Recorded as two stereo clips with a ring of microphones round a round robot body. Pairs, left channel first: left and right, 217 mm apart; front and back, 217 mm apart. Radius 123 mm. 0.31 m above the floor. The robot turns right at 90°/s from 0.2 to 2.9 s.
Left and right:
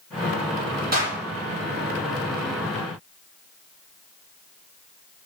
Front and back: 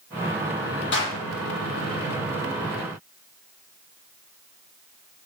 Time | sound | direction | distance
0.9 | a clap | 40° right | 9 m